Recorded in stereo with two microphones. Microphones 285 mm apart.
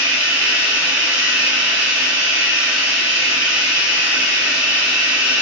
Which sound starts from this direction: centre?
Running water, at 0.0 s.